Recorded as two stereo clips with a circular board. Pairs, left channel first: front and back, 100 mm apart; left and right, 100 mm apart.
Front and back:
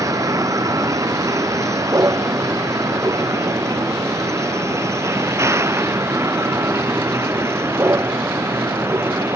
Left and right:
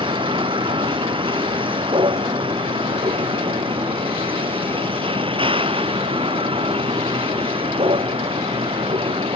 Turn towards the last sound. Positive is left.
turn(degrees=-115)